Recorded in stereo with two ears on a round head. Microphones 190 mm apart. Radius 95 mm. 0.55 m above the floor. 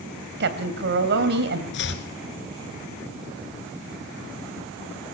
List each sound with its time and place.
0.4 s a woman speaking: 55° right (ahead or behind), 3 m
1.7 s chopping: 60° left (ahead or behind), 2.5 m